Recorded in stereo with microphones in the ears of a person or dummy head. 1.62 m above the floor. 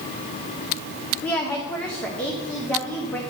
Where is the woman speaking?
5° left (ahead or behind), 0.7 m.